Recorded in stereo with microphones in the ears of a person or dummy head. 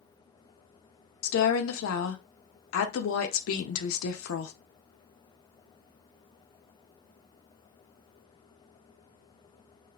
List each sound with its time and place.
1.2 s a woman speaking: 75° left (ahead or behind), 0.5 m